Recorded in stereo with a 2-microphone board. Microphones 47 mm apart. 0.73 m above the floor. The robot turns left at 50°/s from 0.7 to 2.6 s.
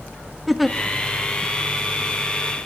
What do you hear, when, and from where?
0.5 s a giggle: centre (ahead or behind), 1.1 m